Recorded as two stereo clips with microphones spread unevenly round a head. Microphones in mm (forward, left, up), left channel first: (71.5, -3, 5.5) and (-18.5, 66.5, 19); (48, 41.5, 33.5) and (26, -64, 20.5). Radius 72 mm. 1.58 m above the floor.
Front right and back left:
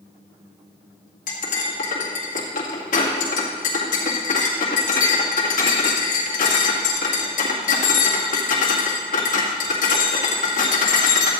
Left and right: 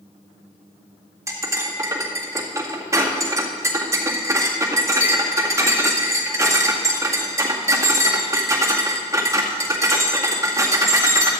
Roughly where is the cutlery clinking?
Ahead right.